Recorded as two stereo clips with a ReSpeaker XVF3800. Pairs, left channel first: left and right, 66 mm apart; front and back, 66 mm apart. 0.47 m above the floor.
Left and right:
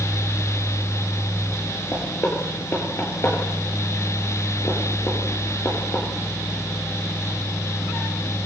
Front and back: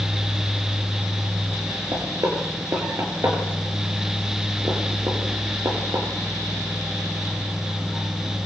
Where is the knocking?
145° left, 6.5 m.